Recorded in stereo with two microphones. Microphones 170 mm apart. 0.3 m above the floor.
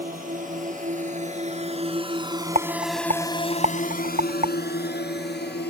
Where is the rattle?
45° right (ahead or behind).